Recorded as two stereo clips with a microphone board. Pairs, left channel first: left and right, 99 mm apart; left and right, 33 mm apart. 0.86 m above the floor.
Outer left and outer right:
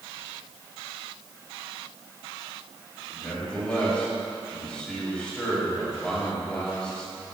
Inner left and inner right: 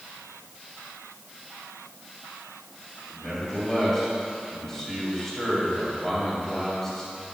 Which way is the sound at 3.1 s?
10° left (ahead or behind).